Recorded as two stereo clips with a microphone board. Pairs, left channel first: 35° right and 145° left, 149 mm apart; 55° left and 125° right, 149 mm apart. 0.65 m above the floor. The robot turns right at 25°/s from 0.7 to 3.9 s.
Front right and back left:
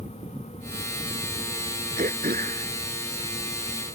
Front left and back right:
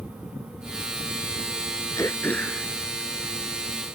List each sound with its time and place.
2.0 s throat clearing: 125° left; by 3.9 s 175° left